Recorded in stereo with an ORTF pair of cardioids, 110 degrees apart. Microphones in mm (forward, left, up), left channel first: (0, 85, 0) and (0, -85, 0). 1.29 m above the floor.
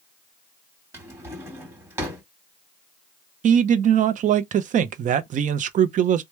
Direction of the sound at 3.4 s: 50° right.